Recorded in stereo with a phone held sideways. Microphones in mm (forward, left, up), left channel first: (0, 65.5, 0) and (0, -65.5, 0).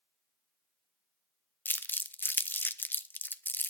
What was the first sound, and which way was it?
Crumpling, 15° left (ahead or behind).